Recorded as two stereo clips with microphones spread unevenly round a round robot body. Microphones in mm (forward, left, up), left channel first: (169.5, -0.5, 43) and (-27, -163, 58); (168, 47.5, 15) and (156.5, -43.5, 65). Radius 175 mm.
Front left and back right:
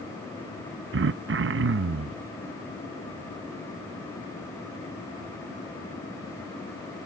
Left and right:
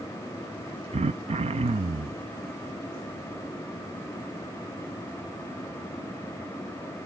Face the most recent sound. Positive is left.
turn(degrees=-130)